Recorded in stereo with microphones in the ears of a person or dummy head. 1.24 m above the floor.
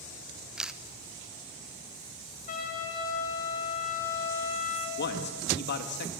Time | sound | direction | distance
0.6 | a camera shutter | centre (ahead or behind) | 0.9 m
2.5 | a trumpet | 45° left (ahead or behind) | 7 m
5.0 | a man speaking | 55° left (ahead or behind) | 1.6 m